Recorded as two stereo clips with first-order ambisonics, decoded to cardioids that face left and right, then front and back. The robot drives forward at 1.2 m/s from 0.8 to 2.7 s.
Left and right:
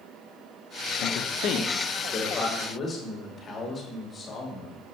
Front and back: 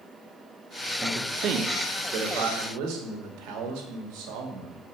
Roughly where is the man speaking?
Left.